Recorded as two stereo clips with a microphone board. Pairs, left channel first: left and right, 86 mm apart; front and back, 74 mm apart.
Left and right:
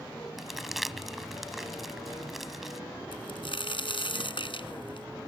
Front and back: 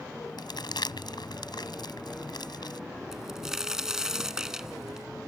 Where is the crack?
100° left.